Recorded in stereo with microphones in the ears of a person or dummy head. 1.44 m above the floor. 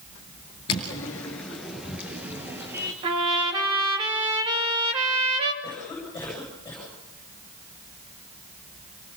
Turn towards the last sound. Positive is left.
turn(degrees=15)  # may be behind; listen again after turning